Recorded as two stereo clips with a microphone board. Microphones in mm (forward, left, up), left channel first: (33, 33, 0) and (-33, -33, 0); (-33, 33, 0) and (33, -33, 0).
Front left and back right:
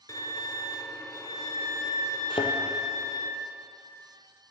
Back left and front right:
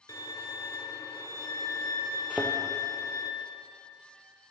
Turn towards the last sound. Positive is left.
turn(degrees=30)